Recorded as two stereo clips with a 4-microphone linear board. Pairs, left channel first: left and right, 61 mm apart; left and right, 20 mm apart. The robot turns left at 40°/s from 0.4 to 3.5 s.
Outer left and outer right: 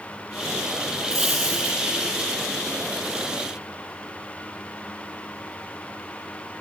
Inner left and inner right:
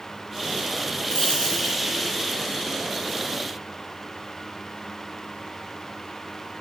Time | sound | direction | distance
1.1 | a dropped coin | 75° left (ahead or behind) | 4.5 m